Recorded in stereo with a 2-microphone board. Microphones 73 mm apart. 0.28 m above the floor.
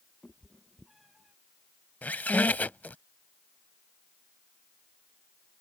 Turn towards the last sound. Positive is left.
turn(degrees=20)  # may be behind; listen again after turning